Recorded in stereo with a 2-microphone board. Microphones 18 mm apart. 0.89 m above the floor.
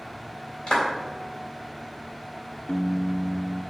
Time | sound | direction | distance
0.7 | a clap | 40° left (ahead or behind) | 3.5 m
2.7 | a piano | 75° left (ahead or behind) | 0.7 m